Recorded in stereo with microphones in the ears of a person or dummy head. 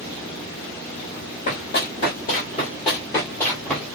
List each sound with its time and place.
1.5 s running footsteps: 50° left (ahead or behind), 1.9 m; by 3.9 s centre (ahead or behind), 1.4 m